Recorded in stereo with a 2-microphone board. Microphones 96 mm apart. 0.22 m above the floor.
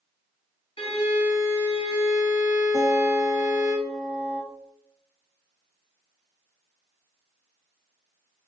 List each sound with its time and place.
0.8 s a violin: 75° left (ahead or behind), 1.3 m
2.7 s a guitar: 5° left (ahead or behind), 1.6 m